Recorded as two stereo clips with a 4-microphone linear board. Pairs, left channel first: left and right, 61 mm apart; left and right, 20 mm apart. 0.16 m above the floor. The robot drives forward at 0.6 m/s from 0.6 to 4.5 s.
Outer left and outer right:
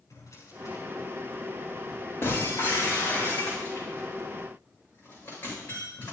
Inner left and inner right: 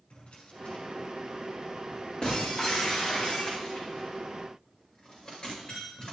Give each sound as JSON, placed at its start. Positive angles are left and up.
{"t": 0.1, "sound": "a drawer", "side_deg": 60, "distance_m": 7.0}
{"t": 2.2, "sound": "breaking glass", "side_deg": 40, "distance_m": 9.0}